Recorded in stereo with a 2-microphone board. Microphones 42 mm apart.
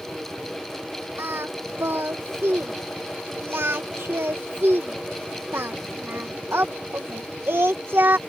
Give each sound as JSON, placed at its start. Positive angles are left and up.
{"t": 1.2, "sound": "singing", "side_deg": -70}